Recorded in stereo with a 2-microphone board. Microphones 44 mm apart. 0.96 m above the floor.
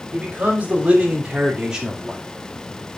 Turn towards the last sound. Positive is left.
turn(degrees=-5)  # may be behind; listen again after turning